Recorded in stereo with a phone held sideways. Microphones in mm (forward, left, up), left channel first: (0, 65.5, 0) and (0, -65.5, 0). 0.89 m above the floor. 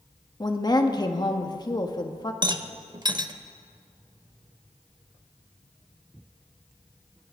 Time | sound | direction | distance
0.4 | a woman speaking | 30° left (ahead or behind) | 1.1 m
2.4 | a rattle | 35° right (ahead or behind) | 0.7 m